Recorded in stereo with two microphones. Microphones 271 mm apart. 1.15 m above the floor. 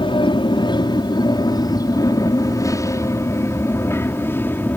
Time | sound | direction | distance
0.0 | an aircraft | 20° left (ahead or behind) | ?